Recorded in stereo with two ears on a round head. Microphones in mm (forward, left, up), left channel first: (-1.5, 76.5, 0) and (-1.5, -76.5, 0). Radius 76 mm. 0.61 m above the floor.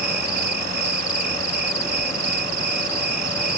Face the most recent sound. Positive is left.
turn(degrees=-55)  # may be behind; listen again after turning